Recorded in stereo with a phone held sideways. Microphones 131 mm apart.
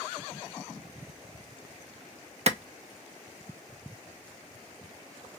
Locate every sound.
2.5 s a clap: 55° right (ahead or behind), 0.5 m